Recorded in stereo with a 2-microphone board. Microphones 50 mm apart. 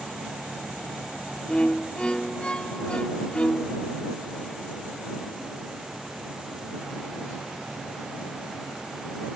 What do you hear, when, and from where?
1.5 s a violin: 20° left (ahead or behind)